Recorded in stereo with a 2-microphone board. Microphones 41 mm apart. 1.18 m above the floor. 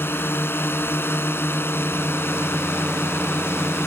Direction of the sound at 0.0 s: 65° left (ahead or behind).